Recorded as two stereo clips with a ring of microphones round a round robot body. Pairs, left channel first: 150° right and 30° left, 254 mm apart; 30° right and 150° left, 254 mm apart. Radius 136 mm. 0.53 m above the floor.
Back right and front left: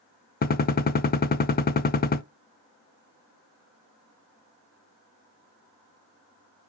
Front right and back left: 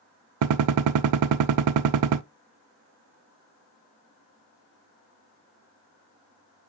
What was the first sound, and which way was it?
A gunshot, 155° left.